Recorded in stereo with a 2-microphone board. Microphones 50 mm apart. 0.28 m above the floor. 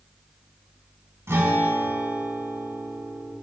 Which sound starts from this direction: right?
A guitar, at 1.3 s.